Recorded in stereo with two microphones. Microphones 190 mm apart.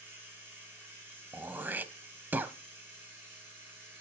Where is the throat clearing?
10° right (ahead or behind), 0.8 m.